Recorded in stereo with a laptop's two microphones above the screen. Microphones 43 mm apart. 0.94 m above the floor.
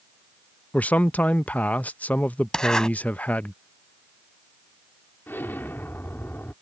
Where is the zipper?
15° left (ahead or behind).